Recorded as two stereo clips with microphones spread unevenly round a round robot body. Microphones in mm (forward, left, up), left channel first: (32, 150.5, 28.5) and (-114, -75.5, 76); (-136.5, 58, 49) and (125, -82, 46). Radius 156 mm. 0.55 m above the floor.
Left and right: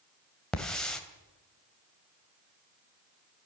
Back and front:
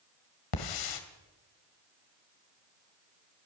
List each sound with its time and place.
0.5 s a hiss: 145° left, 2.5 m